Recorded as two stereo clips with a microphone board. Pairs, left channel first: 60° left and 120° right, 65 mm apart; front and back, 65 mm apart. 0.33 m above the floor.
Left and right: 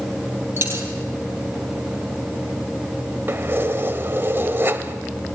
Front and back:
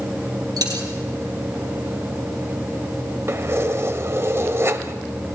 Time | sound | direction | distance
0.6 | a dropped coin | 170° right | 3 m
3.3 | keys jangling | 160° right | 1.2 m